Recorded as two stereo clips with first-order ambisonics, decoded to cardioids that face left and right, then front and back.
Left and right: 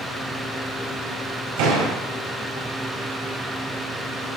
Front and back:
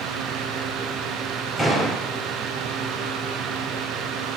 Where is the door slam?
85° right, 4.5 m.